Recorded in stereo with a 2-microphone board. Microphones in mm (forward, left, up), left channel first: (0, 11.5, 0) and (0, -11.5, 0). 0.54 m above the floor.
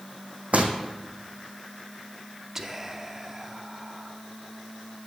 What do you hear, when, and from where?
0.5 s footsteps: 70° right (ahead or behind), 1.9 m
2.5 s whispering: 15° right (ahead or behind), 0.8 m